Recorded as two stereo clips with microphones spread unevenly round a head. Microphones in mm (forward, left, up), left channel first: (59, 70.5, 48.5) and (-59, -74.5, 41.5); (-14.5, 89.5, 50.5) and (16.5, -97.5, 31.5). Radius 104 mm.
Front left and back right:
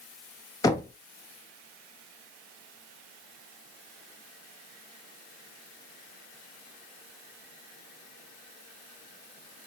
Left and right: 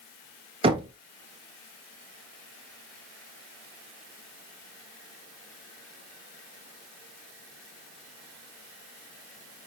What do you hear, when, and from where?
0.6 s knocking: 20° right, 0.9 m